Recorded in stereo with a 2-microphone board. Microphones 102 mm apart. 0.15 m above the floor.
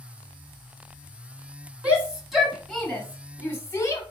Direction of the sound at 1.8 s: 10° right (ahead or behind).